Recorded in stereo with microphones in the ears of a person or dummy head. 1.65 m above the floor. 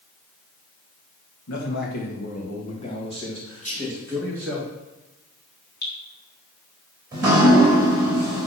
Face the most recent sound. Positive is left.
turn(degrees=-25)  # may be behind; listen again after turning